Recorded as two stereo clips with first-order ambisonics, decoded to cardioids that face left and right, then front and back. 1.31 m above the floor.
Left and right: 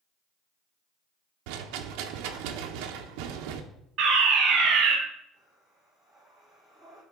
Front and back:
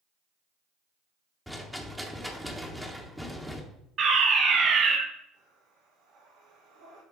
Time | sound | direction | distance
1.5 | a rattle | 90° right | 0.8 m
4.0 | a fire alarm | 130° right | 1.8 m
5.3 | breathing | 175° left | 3 m